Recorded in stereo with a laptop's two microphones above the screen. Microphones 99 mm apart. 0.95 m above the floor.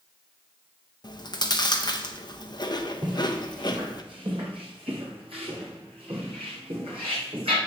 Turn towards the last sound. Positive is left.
turn(degrees=-65)  # may be behind; listen again after turning